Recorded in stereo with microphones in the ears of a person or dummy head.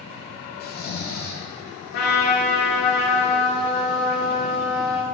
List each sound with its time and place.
0.6 s snoring: 40° left (ahead or behind), 0.8 m
1.9 s a trumpet: 60° left (ahead or behind), 3 m